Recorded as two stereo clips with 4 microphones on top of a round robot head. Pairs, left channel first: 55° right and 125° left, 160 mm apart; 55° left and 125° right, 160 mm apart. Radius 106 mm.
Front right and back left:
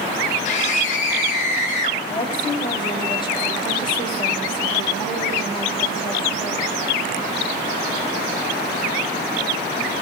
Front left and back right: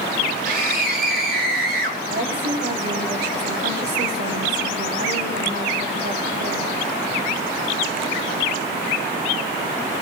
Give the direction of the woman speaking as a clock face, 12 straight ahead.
4 o'clock.